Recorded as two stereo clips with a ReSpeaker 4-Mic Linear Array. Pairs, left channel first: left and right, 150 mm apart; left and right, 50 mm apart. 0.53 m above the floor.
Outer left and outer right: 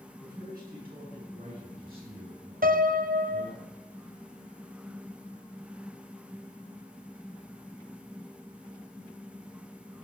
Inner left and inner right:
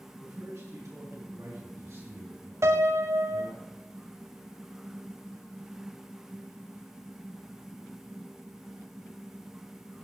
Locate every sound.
0.2 s a man speaking: 80° right, 6.5 m; by 3.6 s 65° right (ahead or behind), 8 m
2.6 s a piano: 70° right (ahead or behind), 0.6 m